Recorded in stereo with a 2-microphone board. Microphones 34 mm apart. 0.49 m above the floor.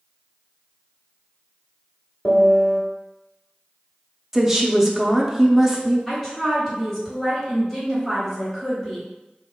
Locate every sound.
2.2 s a piano: 45° left (ahead or behind), 1.3 m
4.3 s a woman speaking: 10° right (ahead or behind), 0.7 m
6.1 s a woman speaking: 10° left (ahead or behind), 1.3 m